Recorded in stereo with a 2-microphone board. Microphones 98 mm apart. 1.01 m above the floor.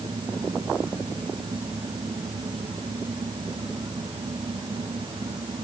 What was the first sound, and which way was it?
Only background noise.